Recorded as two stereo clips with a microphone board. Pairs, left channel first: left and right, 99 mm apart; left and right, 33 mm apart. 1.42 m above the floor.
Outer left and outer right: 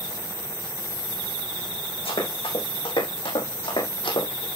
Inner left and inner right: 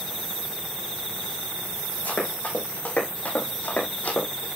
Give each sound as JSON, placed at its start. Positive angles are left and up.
{"t": 2.0, "sound": "running footsteps", "side_deg": 75, "distance_m": 5.0}